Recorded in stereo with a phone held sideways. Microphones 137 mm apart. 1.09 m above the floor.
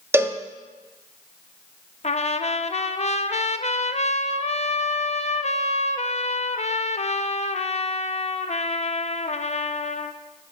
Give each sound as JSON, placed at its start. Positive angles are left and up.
{"t": 0.1, "sound": "a cowbell", "side_deg": -15, "distance_m": 0.6}
{"t": 2.0, "sound": "a trumpet", "side_deg": 50, "distance_m": 0.5}